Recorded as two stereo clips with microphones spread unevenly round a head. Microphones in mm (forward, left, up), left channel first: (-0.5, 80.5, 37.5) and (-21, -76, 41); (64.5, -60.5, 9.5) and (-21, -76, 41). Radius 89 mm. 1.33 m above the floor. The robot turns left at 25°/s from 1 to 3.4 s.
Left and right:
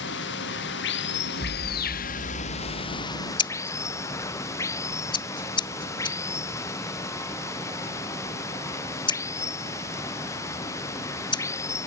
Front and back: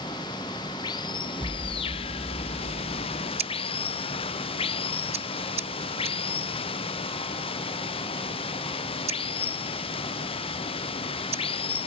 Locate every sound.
0.0 s running water: 70° left; by 11.9 s 10° left
1.4 s an explosion: 120° left; by 3.2 s 75° left
3.4 s scissors: 145° left